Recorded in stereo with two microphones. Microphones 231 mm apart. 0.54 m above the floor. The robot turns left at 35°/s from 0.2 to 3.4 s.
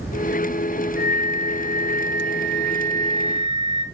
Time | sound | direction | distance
1.0 | a flute | 70° right | 0.5 m